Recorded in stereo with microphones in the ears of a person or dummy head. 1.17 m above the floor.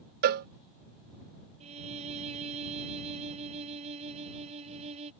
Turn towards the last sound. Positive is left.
turn(degrees=-35)  # may be behind; listen again after turning